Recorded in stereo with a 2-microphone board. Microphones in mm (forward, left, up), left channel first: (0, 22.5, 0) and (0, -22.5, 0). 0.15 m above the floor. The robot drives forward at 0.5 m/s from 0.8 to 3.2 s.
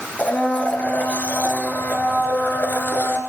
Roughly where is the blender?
Left.